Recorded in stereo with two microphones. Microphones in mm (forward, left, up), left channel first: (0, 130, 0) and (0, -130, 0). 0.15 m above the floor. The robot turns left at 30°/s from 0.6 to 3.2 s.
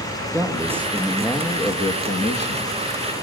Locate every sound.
0.3 s a man speaking: 170° right, 4.5 m; by 3.2 s 115° left, 4.5 m